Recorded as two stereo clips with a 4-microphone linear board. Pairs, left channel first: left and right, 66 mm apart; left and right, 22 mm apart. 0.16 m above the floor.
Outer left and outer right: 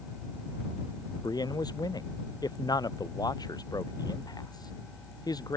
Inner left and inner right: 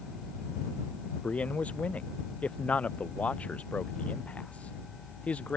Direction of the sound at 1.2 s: 85° left.